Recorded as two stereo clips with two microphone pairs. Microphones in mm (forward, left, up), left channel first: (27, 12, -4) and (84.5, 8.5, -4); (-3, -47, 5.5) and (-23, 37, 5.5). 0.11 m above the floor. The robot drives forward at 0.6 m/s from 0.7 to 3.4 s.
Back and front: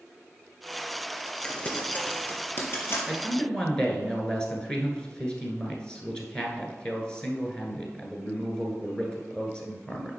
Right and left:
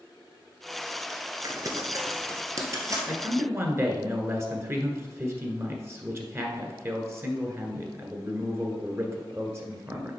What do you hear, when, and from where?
1.4 s crumpling: 110° left, 1.1 m; by 3.0 s 150° left, 1.6 m
3.1 s a man speaking: 95° left, 1.3 m; by 10.1 s 110° left, 1.3 m